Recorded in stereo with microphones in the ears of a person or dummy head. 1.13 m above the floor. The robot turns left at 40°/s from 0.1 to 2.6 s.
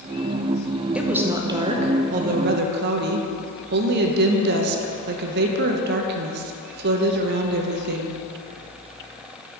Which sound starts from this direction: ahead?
A woman speaking, at 0.9 s.